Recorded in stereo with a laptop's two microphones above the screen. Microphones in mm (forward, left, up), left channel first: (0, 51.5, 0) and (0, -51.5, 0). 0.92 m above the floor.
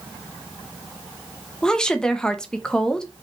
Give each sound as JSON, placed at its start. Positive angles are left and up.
{"t": 1.6, "sound": "a woman speaking", "side_deg": 10, "distance_m": 0.9}